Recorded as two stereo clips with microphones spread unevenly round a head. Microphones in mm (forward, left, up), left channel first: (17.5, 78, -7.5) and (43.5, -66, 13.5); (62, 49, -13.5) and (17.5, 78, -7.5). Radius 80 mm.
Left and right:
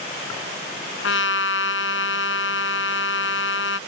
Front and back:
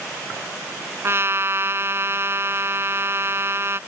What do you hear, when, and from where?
1.0 s a trumpet: 105° left